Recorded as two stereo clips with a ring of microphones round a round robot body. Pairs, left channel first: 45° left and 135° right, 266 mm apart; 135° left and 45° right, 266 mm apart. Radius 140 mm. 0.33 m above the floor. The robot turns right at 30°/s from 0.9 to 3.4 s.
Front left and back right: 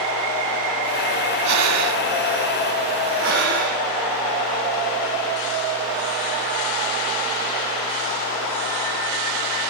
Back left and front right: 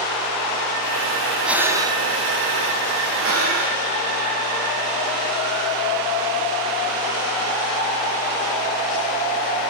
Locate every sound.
1.4 s breathing: 130° right, 3 m; by 2.0 s 115° right, 3 m
3.2 s breathing: 90° right, 6.5 m; by 3.8 s 85° right, 6.5 m